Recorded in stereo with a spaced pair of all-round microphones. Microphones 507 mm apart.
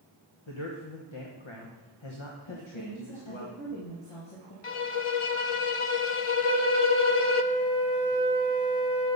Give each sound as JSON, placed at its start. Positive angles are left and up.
{"t": 0.5, "sound": "a man speaking", "side_deg": 65, "distance_m": 1.2}
{"t": 2.5, "sound": "a woman speaking", "side_deg": 75, "distance_m": 2.0}
{"t": 4.6, "sound": "a violin", "side_deg": 75, "distance_m": 0.5}
{"t": 6.4, "sound": "a flute", "side_deg": 50, "distance_m": 4.5}